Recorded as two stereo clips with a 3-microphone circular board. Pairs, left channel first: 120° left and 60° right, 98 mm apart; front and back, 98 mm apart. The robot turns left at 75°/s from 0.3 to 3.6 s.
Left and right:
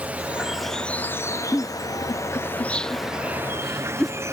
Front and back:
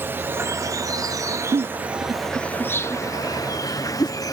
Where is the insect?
130° right; by 4.3 s 15° right.